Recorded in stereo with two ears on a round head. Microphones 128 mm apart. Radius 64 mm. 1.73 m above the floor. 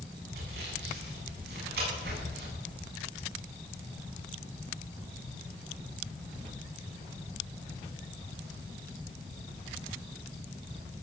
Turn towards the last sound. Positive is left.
turn(degrees=-85)